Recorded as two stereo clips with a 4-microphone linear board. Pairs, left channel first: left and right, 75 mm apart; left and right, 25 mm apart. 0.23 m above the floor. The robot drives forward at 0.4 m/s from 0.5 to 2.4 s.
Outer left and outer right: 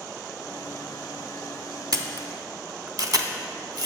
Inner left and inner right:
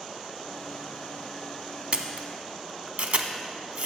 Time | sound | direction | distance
1.9 | a camera shutter | 55° right (ahead or behind) | 0.7 m